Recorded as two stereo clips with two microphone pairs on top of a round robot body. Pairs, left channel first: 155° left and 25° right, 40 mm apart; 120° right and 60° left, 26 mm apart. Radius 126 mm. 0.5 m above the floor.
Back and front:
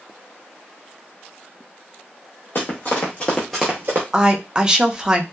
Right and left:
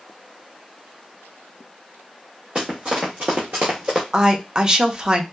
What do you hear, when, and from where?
2.5 s running footsteps: 115° left, 1.1 m; by 4.0 s straight ahead, 0.6 m
4.1 s a woman speaking: 30° left, 0.7 m